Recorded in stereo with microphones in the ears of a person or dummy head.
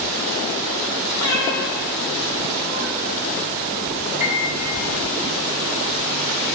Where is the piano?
50° right (ahead or behind), 2.5 m.